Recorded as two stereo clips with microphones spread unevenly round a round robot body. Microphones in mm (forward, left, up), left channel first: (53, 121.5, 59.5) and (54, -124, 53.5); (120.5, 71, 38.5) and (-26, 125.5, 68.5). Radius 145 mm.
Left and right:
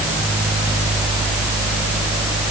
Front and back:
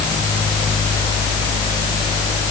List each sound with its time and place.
Only background noise.